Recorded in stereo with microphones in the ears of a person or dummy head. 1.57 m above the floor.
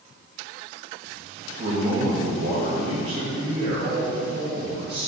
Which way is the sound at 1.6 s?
30° right (ahead or behind).